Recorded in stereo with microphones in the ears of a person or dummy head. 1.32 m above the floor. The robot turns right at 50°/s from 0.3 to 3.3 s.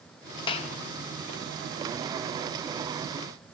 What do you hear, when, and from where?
0.5 s a clap: 25° left (ahead or behind), 1.5 m; by 0.7 s 40° left (ahead or behind), 1.5 m